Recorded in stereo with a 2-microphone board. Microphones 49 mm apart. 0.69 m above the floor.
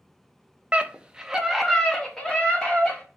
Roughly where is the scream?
Right.